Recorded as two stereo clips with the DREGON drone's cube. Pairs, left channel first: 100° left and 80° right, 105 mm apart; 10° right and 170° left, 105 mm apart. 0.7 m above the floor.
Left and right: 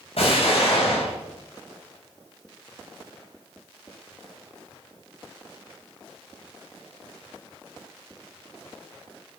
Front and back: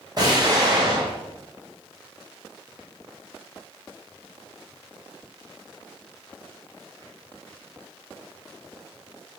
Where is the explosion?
120° left, 4 m.